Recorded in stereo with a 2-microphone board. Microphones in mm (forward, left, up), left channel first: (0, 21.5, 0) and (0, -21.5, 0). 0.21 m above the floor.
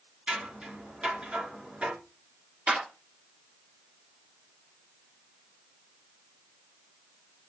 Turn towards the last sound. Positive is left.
turn(degrees=-25)  # may be behind; listen again after turning